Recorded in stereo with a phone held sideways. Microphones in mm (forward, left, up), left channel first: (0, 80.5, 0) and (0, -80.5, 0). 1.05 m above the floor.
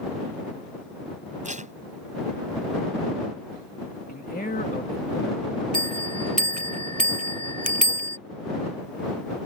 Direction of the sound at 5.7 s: 55° right (ahead or behind).